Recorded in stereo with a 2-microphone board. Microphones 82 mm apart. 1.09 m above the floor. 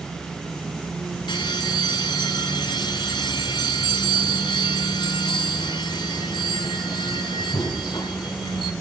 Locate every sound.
1.3 s a bell: 70° left (ahead or behind), 2 m